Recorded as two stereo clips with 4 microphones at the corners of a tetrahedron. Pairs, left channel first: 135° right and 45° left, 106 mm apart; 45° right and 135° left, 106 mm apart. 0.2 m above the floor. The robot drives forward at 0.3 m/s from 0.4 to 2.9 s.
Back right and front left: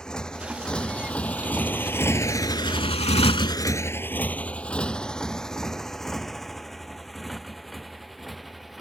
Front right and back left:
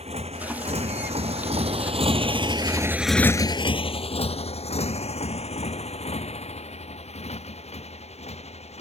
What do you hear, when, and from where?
0.0 s a motorcycle: 140° left; by 8.8 s 45° right